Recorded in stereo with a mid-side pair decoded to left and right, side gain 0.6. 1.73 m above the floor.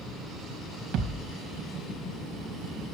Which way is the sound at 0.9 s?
65° right.